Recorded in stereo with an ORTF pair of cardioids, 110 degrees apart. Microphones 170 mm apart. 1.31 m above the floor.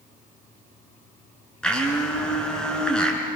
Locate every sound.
1.6 s a blender: 5° left, 5.5 m